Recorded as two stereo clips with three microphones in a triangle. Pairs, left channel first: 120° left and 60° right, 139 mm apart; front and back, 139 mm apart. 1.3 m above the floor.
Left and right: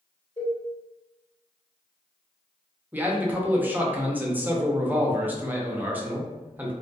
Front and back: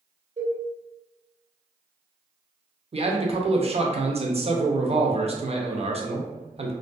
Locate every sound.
0.4 s a cowbell: 165° left, 1.5 m
2.9 s a man speaking: 135° right, 0.5 m